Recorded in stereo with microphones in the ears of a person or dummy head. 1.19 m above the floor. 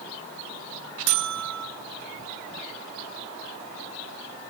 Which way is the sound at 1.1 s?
75° right (ahead or behind).